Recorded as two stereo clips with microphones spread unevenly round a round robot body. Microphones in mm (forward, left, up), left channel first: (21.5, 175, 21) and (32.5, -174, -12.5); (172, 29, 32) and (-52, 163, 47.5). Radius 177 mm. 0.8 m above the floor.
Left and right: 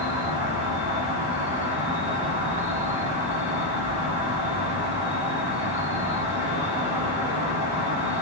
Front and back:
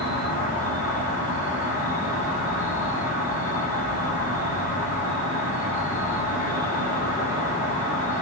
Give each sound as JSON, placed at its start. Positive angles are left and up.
{"t": 0.0, "sound": "an insect", "azimuth_deg": -135, "distance_m": 1.2}